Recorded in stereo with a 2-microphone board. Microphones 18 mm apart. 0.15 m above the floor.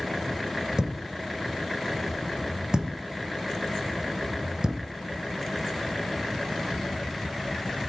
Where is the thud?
45° right (ahead or behind), 1.1 m.